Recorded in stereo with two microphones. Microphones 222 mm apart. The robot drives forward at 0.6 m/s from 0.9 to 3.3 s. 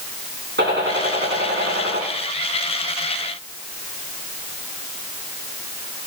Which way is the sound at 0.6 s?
55° right (ahead or behind).